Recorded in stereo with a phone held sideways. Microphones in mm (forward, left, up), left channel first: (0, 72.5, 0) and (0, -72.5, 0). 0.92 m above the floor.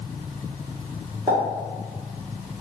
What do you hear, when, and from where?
1.3 s a pop: 40° right (ahead or behind), 1.4 m